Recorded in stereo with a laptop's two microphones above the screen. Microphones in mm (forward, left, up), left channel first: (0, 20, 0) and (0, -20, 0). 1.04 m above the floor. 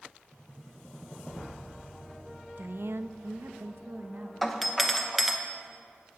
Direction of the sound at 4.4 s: Centre (ahead or behind).